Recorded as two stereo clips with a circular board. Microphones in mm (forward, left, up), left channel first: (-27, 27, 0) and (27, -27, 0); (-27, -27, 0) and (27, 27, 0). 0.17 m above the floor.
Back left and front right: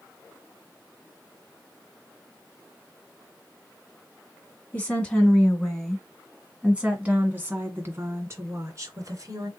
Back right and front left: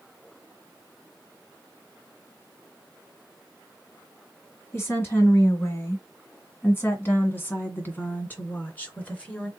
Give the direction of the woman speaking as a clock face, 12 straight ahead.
6 o'clock.